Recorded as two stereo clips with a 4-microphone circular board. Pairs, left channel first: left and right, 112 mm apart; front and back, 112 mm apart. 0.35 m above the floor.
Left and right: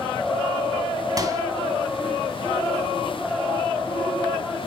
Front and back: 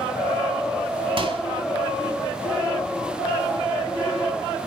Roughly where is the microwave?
Behind right.